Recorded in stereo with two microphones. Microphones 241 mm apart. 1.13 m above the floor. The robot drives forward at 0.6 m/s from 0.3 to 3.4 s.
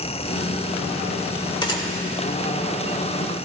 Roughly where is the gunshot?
Centre.